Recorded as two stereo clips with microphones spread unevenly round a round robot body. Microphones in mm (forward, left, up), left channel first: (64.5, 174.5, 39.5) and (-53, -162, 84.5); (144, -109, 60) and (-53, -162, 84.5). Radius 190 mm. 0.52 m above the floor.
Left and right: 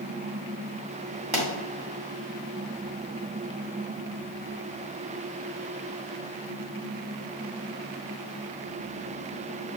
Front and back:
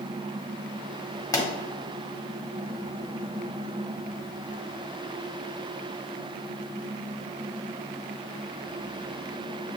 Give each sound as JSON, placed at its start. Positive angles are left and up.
{"t": 1.3, "sound": "a pop", "azimuth_deg": -40, "distance_m": 1.6}